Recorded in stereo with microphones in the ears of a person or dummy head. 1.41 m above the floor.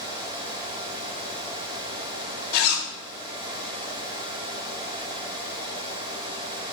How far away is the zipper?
About 2.5 m.